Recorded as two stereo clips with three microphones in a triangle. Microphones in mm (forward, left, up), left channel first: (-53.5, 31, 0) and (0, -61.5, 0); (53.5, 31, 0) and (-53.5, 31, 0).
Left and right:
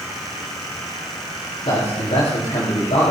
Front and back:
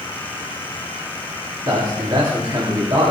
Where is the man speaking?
135° left, 3.5 m.